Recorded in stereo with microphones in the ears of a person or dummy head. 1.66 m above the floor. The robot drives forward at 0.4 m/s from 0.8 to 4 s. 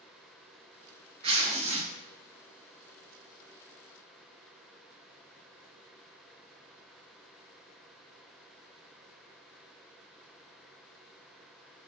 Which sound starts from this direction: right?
Tearing paper, at 1.2 s.